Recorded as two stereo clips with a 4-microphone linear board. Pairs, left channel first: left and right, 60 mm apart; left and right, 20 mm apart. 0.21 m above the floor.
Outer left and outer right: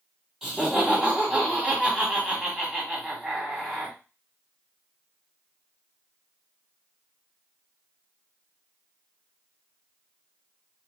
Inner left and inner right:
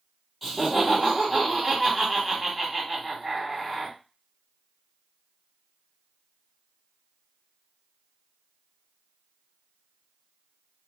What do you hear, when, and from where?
0.4 s laughter: 5° right (ahead or behind), 1.7 m